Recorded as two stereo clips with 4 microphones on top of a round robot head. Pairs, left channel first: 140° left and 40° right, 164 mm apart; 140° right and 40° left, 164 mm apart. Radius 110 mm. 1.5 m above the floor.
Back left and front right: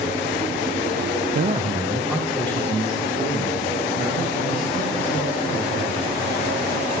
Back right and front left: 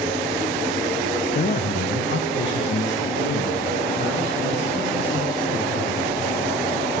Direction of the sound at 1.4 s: 80° right.